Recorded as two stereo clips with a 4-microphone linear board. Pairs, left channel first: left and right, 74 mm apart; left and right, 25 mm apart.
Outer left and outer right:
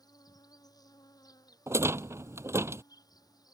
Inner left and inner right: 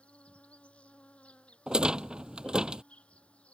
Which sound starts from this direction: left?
An insect, at 0.0 s.